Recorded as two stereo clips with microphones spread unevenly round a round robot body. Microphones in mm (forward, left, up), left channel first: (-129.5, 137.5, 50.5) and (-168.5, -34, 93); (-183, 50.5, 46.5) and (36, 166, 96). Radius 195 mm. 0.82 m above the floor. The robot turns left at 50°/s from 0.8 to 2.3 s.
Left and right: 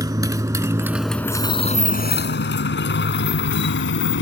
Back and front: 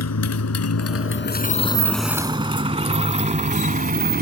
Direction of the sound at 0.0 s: 170° right.